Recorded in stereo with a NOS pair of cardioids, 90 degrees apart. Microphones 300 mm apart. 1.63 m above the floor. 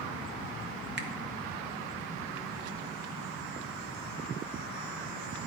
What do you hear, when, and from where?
1.0 s a finger snap: 35° right, 0.9 m